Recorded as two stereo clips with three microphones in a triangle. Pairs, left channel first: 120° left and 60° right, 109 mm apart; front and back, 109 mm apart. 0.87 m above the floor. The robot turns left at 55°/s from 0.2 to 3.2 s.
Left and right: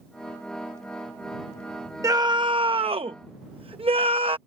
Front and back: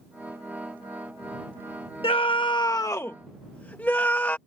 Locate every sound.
2.0 s a scream: 10° right; by 4.4 s 70° right